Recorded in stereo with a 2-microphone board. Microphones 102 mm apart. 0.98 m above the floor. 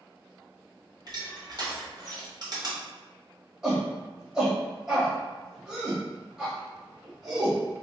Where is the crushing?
45° right (ahead or behind), 1.2 m.